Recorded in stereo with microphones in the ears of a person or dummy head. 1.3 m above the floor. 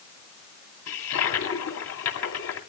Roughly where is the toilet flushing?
Left.